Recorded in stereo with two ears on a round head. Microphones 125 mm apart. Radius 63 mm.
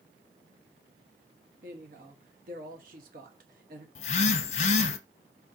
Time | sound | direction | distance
1.6 | a woman speaking | 65° right (ahead or behind) | 1.4 m
4.0 | a phone buzzing | 45° left (ahead or behind) | 0.6 m